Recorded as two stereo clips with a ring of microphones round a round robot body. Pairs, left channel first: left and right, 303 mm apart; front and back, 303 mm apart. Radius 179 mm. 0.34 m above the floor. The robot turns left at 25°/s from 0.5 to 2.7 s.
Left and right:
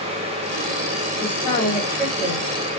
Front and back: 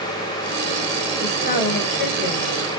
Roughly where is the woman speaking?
Ahead left.